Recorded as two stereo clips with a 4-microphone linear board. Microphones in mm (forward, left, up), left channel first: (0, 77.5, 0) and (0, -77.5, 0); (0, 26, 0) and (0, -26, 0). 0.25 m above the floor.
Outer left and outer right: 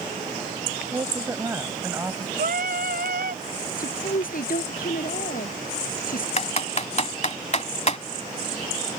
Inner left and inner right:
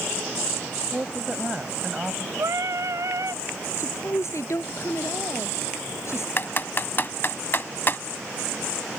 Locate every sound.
0.9 s a woman speaking: 20° right (ahead or behind)
2.4 s singing: 75° right (ahead or behind)
3.8 s a woman speaking: 65° left (ahead or behind)
6.4 s typing on a keyboard: 45° left (ahead or behind)